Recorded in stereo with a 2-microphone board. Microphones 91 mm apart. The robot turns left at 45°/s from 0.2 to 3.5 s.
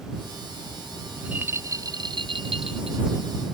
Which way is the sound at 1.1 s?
10° right.